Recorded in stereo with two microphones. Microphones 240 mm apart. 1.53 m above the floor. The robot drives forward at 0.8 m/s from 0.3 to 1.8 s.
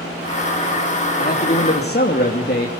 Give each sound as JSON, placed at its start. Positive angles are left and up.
{"t": 1.2, "sound": "a man speaking", "side_deg": 35, "distance_m": 3.5}